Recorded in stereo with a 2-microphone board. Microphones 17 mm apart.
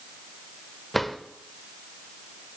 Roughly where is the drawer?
Centre.